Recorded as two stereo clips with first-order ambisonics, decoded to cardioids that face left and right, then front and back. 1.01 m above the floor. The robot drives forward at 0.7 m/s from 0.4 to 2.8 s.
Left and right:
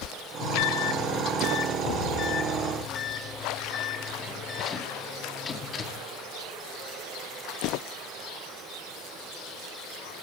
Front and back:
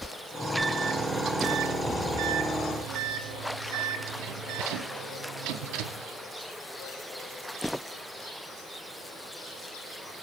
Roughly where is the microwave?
Left.